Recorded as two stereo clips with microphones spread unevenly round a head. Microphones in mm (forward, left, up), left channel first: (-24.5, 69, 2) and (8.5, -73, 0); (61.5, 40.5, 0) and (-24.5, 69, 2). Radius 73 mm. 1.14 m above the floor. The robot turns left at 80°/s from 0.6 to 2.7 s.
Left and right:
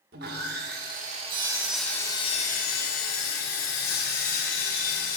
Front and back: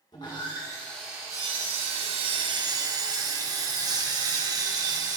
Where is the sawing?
70° right, 1.5 m; by 5.2 s 120° left, 1.5 m.